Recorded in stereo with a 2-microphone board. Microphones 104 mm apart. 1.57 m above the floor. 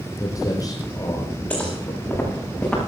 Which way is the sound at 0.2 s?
35° left (ahead or behind).